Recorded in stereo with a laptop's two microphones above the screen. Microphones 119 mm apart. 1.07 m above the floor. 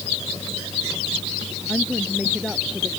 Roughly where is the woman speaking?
Centre.